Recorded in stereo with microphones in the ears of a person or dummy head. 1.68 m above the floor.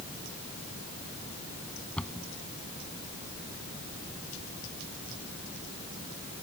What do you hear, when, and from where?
2.0 s a cupboard door: 5° left (ahead or behind)